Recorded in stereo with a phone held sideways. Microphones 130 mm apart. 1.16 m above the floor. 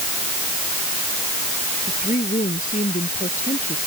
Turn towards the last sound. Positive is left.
turn(degrees=85)